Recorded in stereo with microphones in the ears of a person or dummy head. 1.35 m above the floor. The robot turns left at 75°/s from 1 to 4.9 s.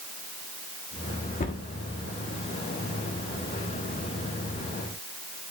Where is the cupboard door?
30° left (ahead or behind), 1.1 m; by 1.6 s 50° left (ahead or behind), 1.1 m.